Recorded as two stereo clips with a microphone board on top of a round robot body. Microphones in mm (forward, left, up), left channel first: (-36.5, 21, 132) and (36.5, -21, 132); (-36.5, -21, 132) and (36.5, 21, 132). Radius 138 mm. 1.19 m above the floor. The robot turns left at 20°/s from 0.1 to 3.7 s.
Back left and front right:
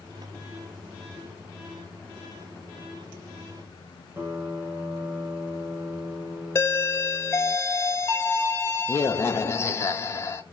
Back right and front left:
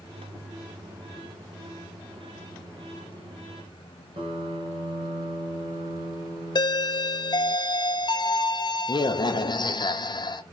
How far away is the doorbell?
About 0.7 m.